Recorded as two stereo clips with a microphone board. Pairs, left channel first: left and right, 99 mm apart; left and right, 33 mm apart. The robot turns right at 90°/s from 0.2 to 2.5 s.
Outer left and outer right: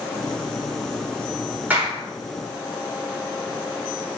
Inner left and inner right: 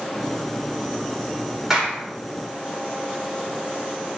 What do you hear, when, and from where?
1.7 s a clap: 15° right, 4 m; by 2.0 s 15° left, 4 m